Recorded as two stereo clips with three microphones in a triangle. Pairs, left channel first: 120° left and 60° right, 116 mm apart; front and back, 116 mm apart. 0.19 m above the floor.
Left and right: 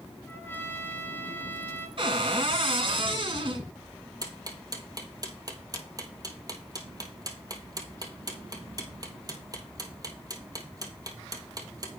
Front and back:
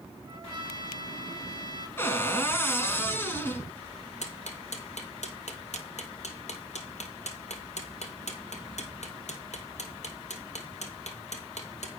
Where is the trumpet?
Straight behind, 1.1 m.